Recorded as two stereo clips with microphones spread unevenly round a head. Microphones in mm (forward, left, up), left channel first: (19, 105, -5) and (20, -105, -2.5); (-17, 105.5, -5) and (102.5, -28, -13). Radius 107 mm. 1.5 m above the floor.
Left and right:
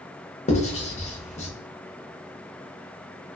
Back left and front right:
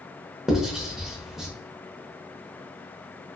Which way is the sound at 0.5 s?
40° left.